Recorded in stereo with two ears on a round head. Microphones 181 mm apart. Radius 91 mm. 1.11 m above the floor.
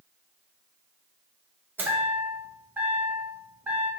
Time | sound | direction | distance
1.8 | a chime | 10° right (ahead or behind) | 0.9 m